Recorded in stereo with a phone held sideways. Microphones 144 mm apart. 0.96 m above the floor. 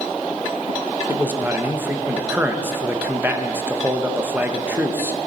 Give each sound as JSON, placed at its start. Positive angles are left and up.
{"t": 1.1, "sound": "a man speaking", "side_deg": -15, "distance_m": 0.8}